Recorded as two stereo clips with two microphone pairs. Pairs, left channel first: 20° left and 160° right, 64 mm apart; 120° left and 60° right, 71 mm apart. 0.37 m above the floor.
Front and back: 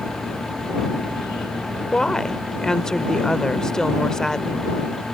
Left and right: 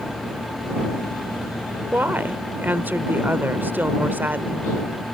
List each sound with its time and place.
1.9 s a woman speaking: 45° right